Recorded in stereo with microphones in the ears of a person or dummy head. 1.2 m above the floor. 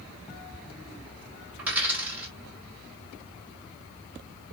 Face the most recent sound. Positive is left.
turn(degrees=-5)  # may be behind; listen again after turning